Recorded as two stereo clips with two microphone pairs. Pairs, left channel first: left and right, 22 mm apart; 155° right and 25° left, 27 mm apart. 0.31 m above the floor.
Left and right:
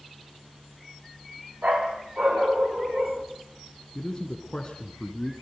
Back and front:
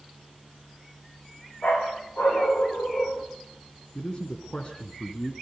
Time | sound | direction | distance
1.6 | a dog barking | 125° right | 6.5 m
4.0 | a man speaking | 150° left | 3 m